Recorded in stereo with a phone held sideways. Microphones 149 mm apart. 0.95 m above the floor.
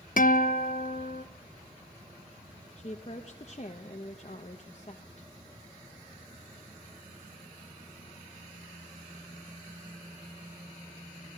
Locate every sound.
0.2 s a guitar: 65° left (ahead or behind), 0.7 m
2.8 s a woman speaking: 45° left (ahead or behind), 0.9 m